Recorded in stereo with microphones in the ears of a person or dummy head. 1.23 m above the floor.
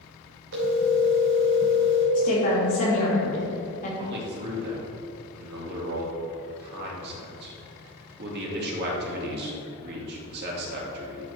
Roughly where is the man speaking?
Right.